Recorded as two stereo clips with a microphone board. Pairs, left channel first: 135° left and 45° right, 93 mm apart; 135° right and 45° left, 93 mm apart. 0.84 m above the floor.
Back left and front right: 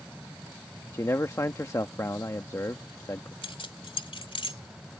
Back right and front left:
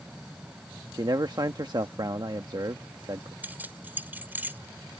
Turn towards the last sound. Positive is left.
turn(degrees=115)